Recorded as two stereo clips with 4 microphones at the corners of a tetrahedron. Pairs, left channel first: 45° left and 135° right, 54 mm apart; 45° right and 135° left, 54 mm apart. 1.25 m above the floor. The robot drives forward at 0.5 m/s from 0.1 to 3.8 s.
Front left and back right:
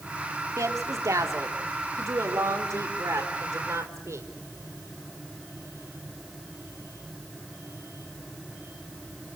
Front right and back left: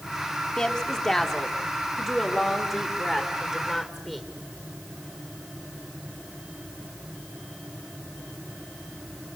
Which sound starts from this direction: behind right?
A woman speaking, at 0.6 s.